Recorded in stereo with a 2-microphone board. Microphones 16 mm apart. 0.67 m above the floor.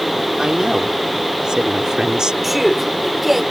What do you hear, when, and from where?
0.4 s a woman speaking: 60° right (ahead or behind)
2.4 s a man speaking: 15° right (ahead or behind)